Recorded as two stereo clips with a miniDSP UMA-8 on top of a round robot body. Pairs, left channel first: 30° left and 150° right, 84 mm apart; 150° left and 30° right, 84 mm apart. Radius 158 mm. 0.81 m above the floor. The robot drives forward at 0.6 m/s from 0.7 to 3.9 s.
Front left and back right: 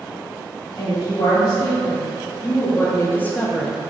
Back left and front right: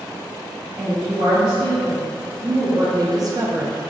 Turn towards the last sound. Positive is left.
turn(degrees=-95)